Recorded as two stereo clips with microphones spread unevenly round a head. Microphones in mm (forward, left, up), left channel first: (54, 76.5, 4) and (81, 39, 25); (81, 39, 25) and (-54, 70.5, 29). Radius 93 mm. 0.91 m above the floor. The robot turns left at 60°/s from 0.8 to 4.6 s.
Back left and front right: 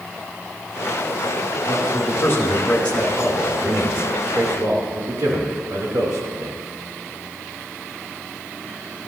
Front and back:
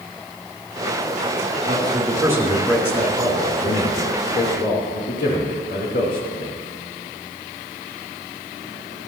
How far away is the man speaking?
About 3 m.